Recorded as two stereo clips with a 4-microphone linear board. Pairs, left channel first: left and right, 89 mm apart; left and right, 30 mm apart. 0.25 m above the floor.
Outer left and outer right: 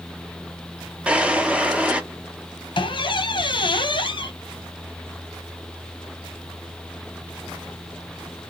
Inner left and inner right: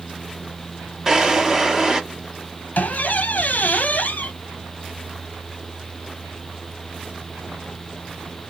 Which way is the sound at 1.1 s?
15° right (ahead or behind).